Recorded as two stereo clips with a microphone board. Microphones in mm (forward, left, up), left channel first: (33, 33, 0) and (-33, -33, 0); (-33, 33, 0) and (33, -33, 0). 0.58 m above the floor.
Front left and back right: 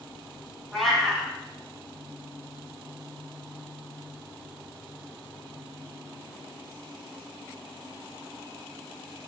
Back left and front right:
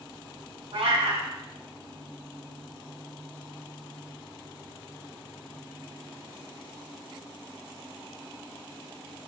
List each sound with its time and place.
0.7 s a cat meowing: 45° right, 1.1 m